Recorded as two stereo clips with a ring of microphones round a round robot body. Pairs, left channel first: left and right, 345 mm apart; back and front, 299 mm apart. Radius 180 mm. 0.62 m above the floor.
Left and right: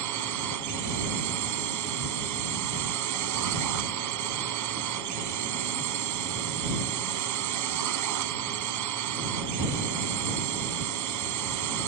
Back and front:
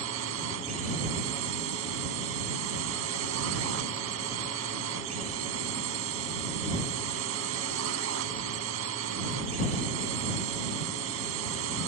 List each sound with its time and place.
0.0 s a drone: 50° right